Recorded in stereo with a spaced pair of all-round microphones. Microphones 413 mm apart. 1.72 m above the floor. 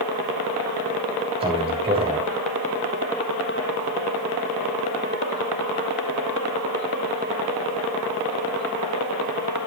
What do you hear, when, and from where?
1.4 s a man speaking: 15° right (ahead or behind), 3.5 m